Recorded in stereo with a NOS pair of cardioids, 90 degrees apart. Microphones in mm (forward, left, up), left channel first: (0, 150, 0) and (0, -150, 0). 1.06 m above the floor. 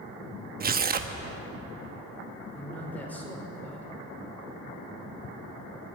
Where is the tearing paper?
30° right, 1.0 m.